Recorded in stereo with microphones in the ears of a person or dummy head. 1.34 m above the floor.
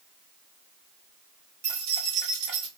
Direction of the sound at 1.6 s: 75° right (ahead or behind).